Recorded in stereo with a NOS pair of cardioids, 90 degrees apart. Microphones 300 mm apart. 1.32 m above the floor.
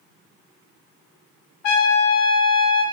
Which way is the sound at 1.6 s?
65° left.